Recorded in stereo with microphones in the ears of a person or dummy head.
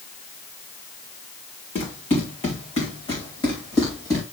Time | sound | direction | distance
1.8 | running footsteps | 35° left (ahead or behind) | 5 m